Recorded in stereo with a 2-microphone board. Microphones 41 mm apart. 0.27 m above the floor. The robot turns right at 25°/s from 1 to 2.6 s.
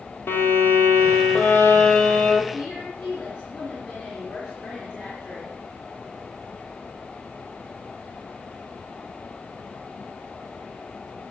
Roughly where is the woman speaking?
Left.